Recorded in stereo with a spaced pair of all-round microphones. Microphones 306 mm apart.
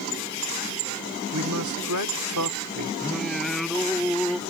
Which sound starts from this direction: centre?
Singing, at 3.0 s.